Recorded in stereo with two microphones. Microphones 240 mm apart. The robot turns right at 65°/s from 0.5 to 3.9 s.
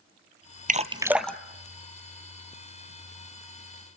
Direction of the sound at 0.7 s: 35° right (ahead or behind).